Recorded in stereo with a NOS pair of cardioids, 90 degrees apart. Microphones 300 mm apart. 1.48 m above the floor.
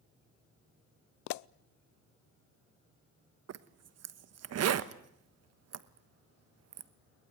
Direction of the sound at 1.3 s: 70° left.